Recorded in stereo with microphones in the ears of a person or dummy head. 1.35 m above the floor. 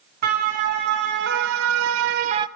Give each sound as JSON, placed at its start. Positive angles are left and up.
{"t": 0.2, "sound": "a siren", "side_deg": -50, "distance_m": 3.0}